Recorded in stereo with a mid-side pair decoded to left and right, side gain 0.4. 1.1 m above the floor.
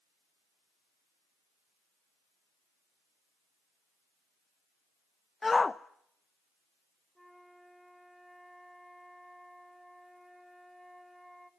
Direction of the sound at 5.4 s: 25° left.